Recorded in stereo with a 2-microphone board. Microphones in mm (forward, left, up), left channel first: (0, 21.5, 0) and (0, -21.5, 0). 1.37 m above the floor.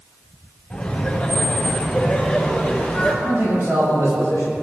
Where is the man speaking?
85° right, 7.5 m.